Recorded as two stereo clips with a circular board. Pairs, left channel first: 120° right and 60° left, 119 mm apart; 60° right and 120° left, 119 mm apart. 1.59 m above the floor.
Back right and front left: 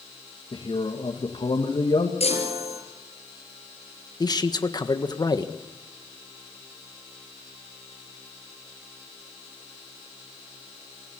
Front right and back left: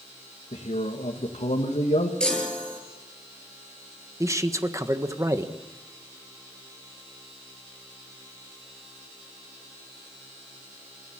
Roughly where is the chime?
Behind right.